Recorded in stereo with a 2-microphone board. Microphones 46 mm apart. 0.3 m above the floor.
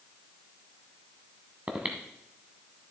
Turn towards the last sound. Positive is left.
turn(degrees=-30)  # may be behind; listen again after turning